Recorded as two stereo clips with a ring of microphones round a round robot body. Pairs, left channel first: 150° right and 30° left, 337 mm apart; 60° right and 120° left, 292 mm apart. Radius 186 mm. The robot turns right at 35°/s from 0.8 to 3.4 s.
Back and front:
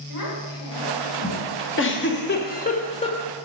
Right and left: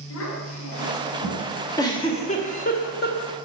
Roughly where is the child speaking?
Right.